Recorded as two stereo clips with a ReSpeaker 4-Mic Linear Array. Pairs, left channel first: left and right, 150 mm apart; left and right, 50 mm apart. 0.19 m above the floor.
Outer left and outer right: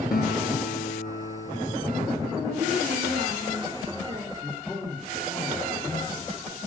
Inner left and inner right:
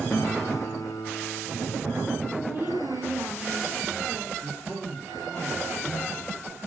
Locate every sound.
0.1 s a guitar: 70° left (ahead or behind), 1.4 m
2.3 s a woman speaking: 40° right (ahead or behind), 8.5 m
4.4 s a man speaking: 10° left (ahead or behind), 7 m